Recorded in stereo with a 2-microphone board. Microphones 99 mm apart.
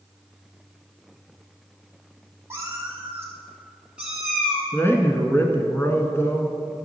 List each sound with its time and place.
2.5 s a cat meowing: 30° right (ahead or behind), 2 m; by 4.6 s centre (ahead or behind), 1.9 m
4.7 s a man speaking: 25° left (ahead or behind), 1.1 m